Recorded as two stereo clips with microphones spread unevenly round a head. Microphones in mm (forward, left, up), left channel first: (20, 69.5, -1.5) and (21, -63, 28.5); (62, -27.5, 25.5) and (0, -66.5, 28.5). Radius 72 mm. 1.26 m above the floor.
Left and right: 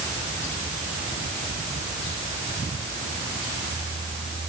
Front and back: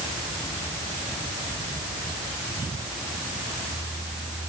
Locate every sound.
Only background noise.